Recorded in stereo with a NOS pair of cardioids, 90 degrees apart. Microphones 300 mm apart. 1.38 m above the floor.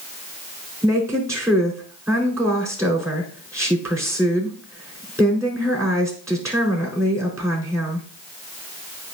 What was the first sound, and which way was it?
A woman speaking, 10° right.